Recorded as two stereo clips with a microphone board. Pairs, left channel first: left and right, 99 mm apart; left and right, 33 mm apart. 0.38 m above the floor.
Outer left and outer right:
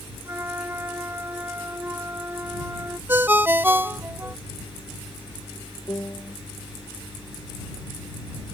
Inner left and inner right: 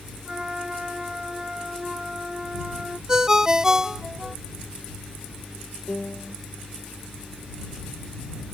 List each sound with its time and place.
0.2 s a flute: 20° right (ahead or behind)
3.1 s a ringtone: 20° right (ahead or behind)
5.9 s a piano: 25° left (ahead or behind)